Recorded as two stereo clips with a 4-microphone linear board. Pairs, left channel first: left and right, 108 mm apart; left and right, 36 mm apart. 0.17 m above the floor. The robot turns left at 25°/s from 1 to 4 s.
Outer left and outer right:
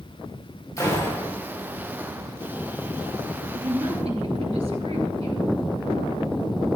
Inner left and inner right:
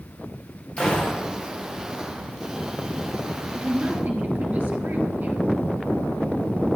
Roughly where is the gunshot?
Left.